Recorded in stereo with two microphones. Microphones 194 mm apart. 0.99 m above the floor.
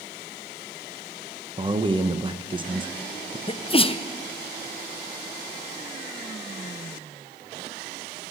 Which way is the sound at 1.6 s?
25° right (ahead or behind).